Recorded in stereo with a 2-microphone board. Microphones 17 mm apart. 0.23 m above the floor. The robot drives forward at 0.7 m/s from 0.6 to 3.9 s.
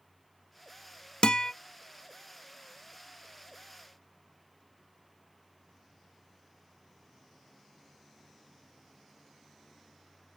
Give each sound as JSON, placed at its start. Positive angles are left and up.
{"t": 1.2, "sound": "a guitar", "side_deg": 60, "distance_m": 0.5}